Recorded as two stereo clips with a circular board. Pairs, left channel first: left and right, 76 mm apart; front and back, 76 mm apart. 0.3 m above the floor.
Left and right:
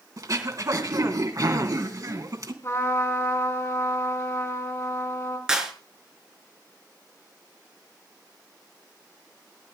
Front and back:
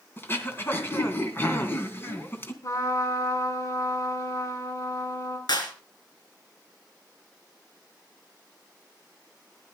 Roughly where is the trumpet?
Ahead left.